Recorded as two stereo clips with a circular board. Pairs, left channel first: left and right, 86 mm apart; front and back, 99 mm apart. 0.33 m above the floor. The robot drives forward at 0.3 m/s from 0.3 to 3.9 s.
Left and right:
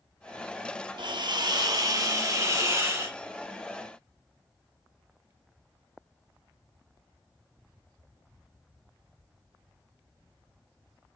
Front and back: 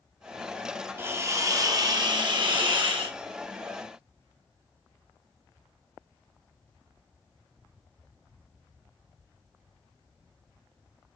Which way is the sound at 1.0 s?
110° right.